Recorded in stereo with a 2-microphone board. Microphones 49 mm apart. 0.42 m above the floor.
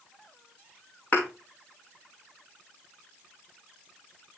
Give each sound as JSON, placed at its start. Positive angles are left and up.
{"t": 1.1, "sound": "a thud", "side_deg": 30, "distance_m": 3.0}